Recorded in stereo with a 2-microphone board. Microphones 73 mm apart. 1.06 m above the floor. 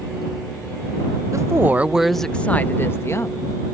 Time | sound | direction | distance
1.3 | a woman speaking | 45° right (ahead or behind) | ?